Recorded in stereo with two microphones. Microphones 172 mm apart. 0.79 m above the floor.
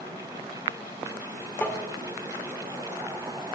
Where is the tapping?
10° left (ahead or behind), 2 m.